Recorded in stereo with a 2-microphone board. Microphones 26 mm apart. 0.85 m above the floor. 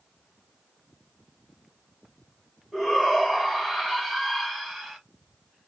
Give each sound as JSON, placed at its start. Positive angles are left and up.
{"t": 2.7, "sound": "a shout", "side_deg": -10, "distance_m": 1.8}